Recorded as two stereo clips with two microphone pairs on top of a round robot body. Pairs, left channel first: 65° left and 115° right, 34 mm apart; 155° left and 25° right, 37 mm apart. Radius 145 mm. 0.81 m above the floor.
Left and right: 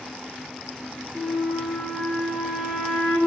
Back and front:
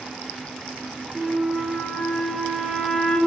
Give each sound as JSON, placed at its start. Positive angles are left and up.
{"t": 1.1, "sound": "a flute", "azimuth_deg": -150, "distance_m": 1.0}